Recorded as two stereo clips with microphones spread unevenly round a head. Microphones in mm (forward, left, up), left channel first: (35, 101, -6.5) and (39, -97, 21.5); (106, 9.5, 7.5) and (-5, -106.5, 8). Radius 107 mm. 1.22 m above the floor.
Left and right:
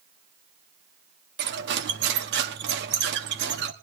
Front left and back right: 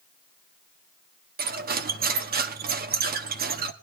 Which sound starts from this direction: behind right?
Cutlery clinking, at 1.4 s.